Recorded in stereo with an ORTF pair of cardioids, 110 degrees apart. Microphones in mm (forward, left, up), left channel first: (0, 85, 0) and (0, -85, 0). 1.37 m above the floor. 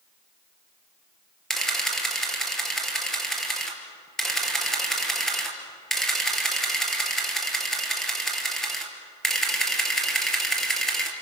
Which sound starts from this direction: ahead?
A camera shutter, at 1.5 s.